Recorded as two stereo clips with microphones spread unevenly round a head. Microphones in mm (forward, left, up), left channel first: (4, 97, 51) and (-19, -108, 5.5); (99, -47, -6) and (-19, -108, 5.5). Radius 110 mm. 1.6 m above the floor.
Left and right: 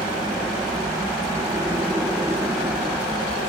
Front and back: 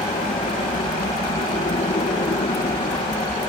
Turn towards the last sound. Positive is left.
turn(degrees=-10)